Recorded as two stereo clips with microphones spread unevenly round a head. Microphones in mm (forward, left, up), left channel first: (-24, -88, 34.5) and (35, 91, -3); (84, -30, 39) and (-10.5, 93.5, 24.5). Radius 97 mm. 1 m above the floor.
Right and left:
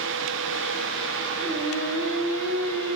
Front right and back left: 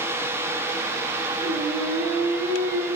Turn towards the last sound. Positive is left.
turn(degrees=170)